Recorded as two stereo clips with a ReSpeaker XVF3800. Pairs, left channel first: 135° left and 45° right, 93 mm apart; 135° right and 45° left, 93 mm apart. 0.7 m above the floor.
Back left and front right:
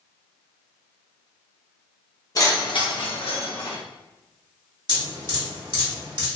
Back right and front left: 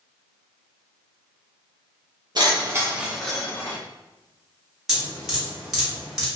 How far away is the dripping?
About 1.7 m.